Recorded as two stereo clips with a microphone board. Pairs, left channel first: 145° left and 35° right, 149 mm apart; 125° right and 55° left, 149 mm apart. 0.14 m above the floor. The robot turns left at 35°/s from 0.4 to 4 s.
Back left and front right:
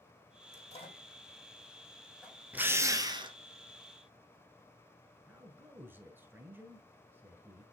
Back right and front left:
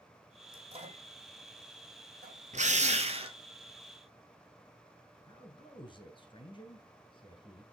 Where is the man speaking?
100° right, 1.2 m.